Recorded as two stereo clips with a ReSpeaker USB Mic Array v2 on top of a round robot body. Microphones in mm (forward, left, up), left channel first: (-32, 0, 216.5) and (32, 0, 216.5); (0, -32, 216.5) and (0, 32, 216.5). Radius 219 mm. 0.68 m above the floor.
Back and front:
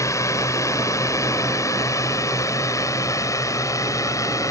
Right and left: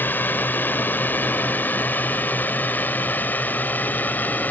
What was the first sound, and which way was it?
A drone, 150° right.